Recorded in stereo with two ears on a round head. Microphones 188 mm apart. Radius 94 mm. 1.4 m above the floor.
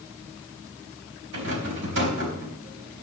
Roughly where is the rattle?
Right.